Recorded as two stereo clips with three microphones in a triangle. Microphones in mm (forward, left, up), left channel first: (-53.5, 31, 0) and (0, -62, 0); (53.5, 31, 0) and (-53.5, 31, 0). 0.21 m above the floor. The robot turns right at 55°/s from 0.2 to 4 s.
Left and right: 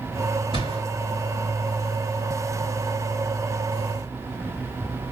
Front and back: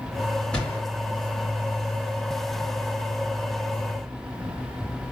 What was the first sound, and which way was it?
A gunshot, 80° right.